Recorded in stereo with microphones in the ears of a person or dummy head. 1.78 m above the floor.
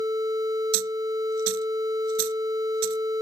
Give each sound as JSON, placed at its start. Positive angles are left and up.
{"t": 0.7, "sound": "a dropped coin", "side_deg": -85}